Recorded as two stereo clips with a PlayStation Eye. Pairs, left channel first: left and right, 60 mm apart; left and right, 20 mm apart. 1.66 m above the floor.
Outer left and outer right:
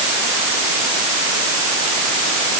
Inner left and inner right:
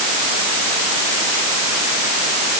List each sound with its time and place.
Only background noise.